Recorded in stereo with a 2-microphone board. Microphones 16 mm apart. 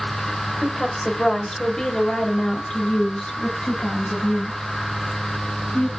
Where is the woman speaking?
20° left (ahead or behind), 2.5 m; by 5.9 s 70° left (ahead or behind), 4 m.